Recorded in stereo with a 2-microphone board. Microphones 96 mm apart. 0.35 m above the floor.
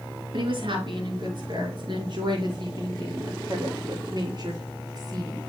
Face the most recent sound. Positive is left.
turn(degrees=-45)  # may be behind; listen again after turning